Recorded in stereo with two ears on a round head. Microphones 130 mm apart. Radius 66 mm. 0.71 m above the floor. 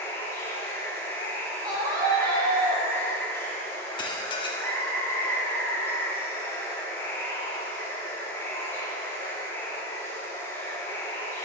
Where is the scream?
25° right (ahead or behind), 1.1 m.